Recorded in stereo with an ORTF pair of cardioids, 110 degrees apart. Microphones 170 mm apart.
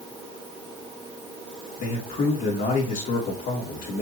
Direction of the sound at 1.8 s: 60° left.